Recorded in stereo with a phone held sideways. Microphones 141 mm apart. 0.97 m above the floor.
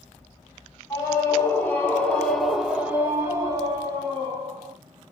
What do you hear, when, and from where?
0.9 s a scream: 25° left (ahead or behind), 1.3 m; by 4.8 s 40° right (ahead or behind), 1.2 m